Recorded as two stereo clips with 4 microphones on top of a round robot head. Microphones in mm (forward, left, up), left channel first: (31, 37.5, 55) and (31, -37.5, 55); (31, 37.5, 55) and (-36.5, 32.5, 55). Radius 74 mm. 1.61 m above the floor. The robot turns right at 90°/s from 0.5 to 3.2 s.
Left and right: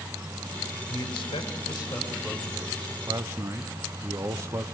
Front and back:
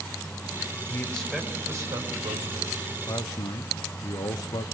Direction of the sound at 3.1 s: 45° right.